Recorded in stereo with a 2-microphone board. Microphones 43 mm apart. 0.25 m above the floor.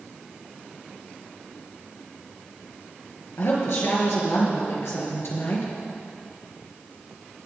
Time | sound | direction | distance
3.4 | a woman speaking | 75° left (ahead or behind) | 5.5 m